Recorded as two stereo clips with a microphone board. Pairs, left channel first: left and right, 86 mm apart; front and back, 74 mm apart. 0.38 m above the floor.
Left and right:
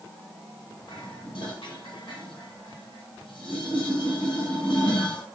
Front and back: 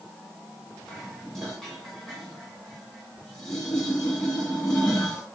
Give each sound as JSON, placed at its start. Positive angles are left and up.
{"t": 0.9, "sound": "dishes clattering", "azimuth_deg": 85, "distance_m": 2.0}